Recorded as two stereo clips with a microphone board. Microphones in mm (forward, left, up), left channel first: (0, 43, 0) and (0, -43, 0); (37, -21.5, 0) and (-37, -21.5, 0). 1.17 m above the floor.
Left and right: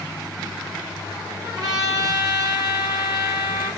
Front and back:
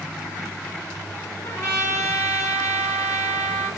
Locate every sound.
1.4 s a trumpet: 50° right, 3.5 m